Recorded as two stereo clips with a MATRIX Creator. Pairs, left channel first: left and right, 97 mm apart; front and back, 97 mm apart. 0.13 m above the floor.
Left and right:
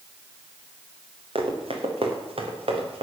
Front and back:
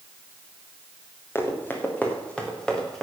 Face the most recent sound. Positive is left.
turn(degrees=-90)